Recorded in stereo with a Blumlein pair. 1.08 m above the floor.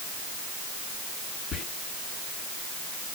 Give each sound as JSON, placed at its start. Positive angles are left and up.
{"t": 1.5, "sound": "whispering", "azimuth_deg": 25, "distance_m": 0.8}